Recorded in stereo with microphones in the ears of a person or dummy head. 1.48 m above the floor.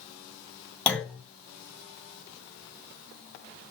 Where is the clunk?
5° left (ahead or behind), 1.8 m.